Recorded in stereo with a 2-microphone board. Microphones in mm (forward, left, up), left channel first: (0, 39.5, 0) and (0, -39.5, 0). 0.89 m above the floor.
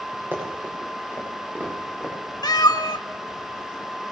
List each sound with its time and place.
0.3 s running footsteps: 30° right (ahead or behind), 8.5 m; by 2.1 s 20° right (ahead or behind), 10 m
2.4 s a cat meowing: 60° left (ahead or behind), 1.1 m